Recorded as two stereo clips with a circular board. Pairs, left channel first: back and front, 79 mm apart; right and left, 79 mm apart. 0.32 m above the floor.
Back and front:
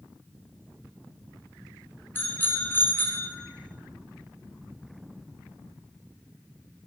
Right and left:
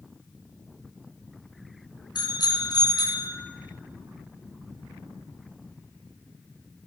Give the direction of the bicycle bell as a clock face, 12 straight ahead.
4 o'clock.